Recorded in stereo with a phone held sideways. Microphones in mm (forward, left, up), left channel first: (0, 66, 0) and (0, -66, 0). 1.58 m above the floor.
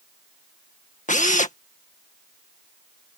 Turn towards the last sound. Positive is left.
turn(degrees=70)  # may be behind; listen again after turning